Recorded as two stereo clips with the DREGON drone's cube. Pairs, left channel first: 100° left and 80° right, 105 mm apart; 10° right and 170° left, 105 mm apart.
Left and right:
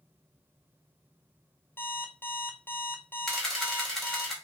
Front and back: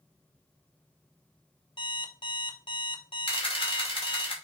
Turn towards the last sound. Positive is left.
turn(degrees=15)